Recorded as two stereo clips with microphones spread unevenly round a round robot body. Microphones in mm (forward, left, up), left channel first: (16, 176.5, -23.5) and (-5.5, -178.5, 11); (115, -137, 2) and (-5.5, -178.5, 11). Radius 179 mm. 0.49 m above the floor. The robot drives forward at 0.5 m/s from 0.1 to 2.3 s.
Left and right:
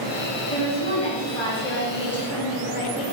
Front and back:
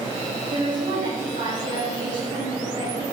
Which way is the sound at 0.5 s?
160° left.